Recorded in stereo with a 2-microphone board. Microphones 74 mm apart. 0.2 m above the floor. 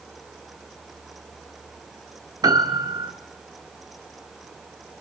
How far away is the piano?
About 1.3 m.